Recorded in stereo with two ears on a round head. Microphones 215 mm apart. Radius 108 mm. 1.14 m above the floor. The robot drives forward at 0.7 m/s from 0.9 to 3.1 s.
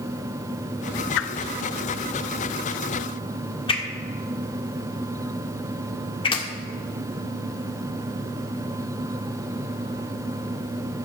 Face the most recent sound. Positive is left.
turn(degrees=20)  # may be behind; listen again after turning